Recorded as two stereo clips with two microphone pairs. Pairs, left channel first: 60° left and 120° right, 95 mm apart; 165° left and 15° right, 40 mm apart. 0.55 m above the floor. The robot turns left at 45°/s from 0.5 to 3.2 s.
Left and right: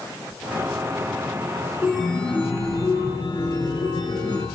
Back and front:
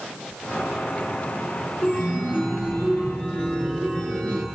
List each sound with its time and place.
1.8 s a chime: 160° left, 5.5 m; by 4.5 s 95° left, 5.5 m